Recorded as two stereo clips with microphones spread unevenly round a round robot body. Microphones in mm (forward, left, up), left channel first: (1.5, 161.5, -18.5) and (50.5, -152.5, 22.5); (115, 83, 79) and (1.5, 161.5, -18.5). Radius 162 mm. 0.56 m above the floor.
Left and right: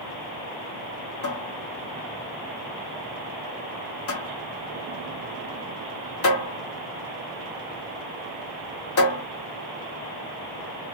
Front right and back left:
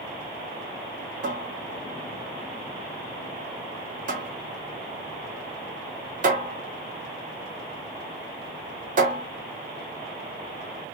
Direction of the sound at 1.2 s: 150° left.